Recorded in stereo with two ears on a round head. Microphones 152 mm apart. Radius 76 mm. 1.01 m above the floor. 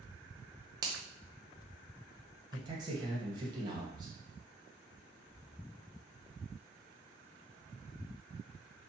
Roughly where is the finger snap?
Right.